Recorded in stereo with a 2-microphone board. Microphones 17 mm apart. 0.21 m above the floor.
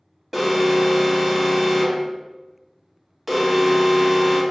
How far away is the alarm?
About 1.6 m.